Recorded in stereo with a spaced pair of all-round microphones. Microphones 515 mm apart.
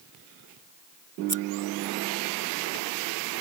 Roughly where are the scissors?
Right.